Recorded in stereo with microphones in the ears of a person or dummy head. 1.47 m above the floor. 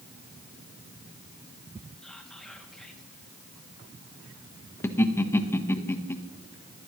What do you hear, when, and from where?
2.0 s whispering: centre (ahead or behind), 2.5 m
4.8 s laughter: 10° left (ahead or behind), 1.2 m